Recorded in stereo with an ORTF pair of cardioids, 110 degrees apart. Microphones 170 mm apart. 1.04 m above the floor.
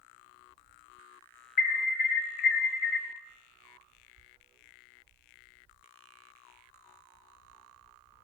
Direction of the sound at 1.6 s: 65° left.